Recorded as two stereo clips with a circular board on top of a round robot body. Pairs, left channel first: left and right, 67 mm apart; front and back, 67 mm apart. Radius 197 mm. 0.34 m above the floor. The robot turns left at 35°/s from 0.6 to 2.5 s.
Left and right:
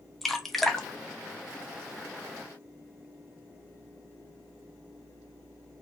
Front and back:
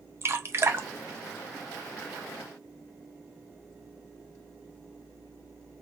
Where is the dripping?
175° left, 0.7 m; by 2.1 s 125° left, 0.7 m.